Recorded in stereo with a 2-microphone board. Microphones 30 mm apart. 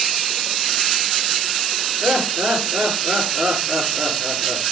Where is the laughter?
60° right (ahead or behind), 7.5 m.